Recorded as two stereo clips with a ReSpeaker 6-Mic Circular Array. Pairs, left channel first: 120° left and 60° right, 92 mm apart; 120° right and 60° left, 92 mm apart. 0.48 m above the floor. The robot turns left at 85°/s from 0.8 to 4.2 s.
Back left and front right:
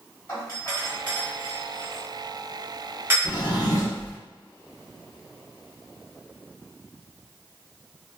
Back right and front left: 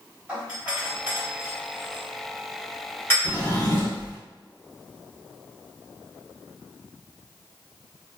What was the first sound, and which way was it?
A doorbell, 105° left.